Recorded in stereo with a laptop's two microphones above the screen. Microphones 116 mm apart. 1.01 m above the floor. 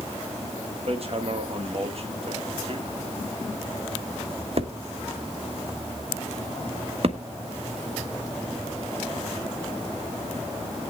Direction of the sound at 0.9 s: 55° right (ahead or behind).